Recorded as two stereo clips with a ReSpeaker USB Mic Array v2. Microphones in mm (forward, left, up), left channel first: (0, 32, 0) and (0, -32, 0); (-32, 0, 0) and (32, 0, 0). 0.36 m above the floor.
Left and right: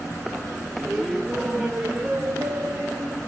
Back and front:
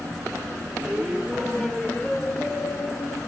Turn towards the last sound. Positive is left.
turn(degrees=-140)